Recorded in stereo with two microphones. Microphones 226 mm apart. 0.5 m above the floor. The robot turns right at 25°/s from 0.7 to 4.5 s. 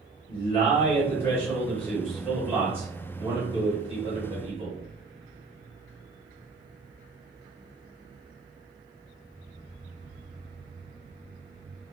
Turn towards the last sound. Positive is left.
turn(degrees=-120)